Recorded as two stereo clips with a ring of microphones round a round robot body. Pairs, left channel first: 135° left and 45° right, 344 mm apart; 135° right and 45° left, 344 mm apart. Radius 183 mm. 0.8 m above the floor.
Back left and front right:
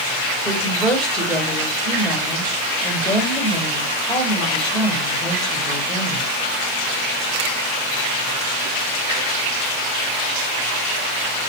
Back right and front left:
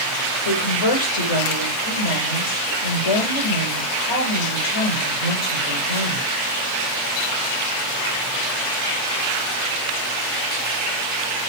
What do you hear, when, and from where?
0.5 s a woman speaking: 135° right, 3 m